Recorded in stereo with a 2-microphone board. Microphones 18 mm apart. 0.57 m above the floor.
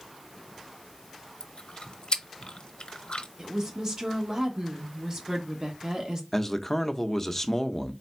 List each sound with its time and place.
1.4 s chewing: 55° left (ahead or behind), 0.6 m
3.4 s a woman speaking: 30° right (ahead or behind), 1.2 m
6.3 s a man speaking: 20° left (ahead or behind), 0.6 m